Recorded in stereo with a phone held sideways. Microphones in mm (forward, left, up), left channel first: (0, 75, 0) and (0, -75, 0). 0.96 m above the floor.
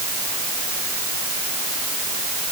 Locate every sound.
Only background noise.